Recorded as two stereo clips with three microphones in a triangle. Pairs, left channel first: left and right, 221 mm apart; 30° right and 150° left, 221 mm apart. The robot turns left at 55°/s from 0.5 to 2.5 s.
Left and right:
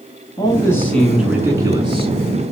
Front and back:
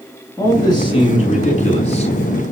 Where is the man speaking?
35° left, 1.6 m; by 2.1 s 55° right, 1.6 m.